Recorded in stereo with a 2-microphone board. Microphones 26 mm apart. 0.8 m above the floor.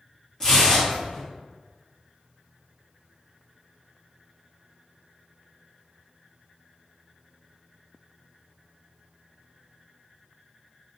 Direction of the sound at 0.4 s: 25° left (ahead or behind).